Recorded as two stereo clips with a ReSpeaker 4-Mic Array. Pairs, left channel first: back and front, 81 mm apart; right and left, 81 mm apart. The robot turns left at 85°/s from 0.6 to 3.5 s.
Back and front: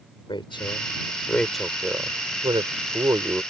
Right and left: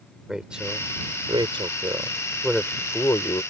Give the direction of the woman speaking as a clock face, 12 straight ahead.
6 o'clock.